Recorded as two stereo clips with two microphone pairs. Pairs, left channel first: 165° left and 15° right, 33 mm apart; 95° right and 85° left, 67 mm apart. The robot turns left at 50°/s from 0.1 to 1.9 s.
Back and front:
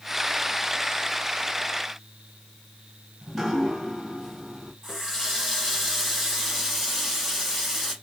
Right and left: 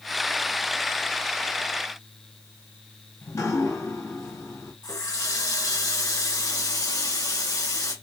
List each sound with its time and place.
3.2 s dripping: 95° right, 1.6 m
4.8 s a running tap: 110° right, 2 m